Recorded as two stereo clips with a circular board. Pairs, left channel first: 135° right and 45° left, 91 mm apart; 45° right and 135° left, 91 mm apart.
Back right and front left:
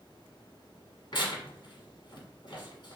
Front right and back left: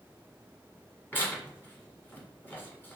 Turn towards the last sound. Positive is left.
turn(degrees=-110)